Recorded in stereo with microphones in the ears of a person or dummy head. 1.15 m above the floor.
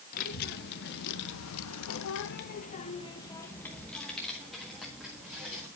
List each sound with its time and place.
0.1 s a child speaking: 50° left (ahead or behind), 1.3 m; by 5.7 s 10° right (ahead or behind), 1.9 m